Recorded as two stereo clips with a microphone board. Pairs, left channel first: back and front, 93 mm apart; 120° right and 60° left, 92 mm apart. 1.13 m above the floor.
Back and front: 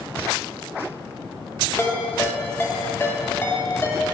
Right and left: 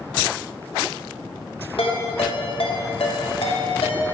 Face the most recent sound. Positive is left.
turn(degrees=-115)